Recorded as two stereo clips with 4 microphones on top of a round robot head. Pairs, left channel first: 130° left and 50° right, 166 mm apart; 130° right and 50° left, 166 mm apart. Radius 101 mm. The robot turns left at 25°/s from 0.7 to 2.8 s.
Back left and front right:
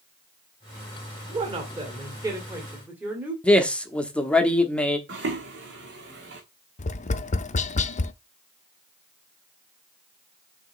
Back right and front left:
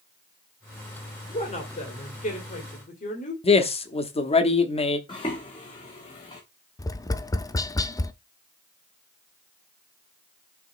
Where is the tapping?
165° left, 0.6 m.